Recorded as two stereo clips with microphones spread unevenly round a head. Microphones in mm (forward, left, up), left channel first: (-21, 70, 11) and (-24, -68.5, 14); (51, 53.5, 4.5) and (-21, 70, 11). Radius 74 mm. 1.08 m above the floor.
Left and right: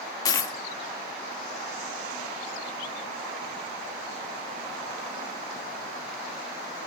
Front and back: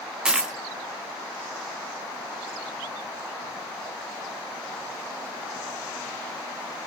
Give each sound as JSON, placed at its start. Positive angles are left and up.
{"t": 0.2, "sound": "a dropped coin", "azimuth_deg": 115, "distance_m": 0.5}